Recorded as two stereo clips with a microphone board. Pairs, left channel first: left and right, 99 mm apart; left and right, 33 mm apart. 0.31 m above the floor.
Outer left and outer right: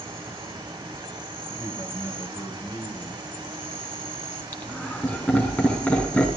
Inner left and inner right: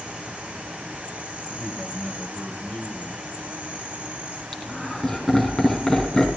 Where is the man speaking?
25° left (ahead or behind), 2 m.